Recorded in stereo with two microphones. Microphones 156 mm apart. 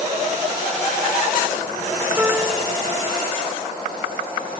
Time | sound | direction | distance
2.2 | a piano | 10° right (ahead or behind) | ?